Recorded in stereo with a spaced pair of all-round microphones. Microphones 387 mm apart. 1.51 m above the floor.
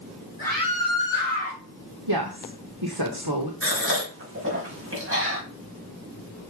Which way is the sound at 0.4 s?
45° right (ahead or behind).